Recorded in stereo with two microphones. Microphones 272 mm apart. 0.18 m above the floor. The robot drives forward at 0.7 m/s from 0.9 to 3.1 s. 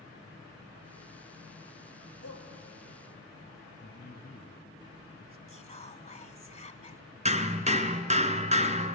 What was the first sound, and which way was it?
A shout, 60° left (ahead or behind).